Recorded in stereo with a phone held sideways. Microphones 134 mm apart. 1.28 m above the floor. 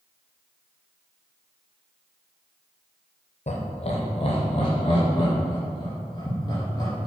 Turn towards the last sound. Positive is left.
turn(degrees=30)  # may be behind; listen again after turning